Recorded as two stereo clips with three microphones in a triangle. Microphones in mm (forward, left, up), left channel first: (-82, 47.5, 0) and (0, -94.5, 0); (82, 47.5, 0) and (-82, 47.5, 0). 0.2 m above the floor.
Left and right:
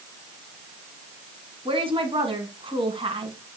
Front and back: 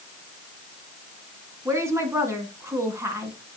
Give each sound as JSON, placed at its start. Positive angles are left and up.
{"t": 1.6, "sound": "a woman speaking", "azimuth_deg": -110, "distance_m": 1.6}